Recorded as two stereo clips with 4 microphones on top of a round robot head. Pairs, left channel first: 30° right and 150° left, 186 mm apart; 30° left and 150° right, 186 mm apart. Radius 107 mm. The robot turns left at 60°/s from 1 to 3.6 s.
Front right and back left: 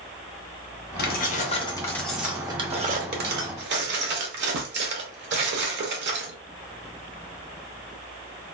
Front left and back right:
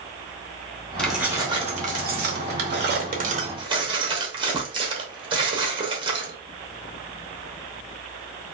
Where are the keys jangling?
55° right, 0.9 m; by 6.3 s 150° left, 0.9 m.